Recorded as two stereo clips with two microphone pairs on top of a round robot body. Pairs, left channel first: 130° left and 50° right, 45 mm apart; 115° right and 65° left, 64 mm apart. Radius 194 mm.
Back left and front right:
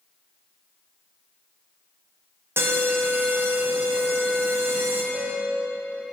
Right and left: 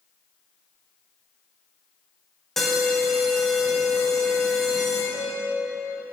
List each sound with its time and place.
2.6 s an alarm: 30° right, 2.5 m
5.1 s a piano: 65° right, 1.5 m